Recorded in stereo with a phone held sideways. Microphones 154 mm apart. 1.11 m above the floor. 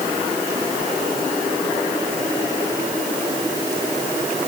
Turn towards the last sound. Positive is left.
No sound to turn to.